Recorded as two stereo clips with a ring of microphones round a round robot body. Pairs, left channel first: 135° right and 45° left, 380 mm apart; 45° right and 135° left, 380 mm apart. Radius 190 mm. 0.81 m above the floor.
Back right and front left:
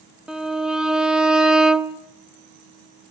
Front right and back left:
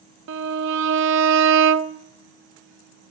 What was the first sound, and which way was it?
A violin, 130° left.